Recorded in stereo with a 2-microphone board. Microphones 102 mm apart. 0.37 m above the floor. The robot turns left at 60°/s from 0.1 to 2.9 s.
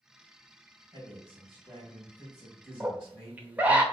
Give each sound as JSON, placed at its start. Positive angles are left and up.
{"t": 0.9, "sound": "a man speaking", "azimuth_deg": -70, "distance_m": 3.0}
{"t": 2.8, "sound": "a scream", "side_deg": -15, "distance_m": 1.0}